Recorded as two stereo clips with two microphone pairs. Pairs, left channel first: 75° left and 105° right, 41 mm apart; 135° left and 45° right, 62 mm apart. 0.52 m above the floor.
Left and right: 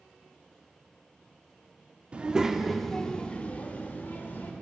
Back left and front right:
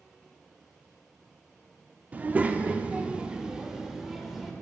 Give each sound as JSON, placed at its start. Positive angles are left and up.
{"t": 2.1, "sound": "a child speaking", "azimuth_deg": -85, "distance_m": 0.6}